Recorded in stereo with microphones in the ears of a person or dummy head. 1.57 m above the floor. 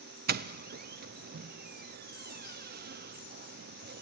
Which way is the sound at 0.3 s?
50° right (ahead or behind).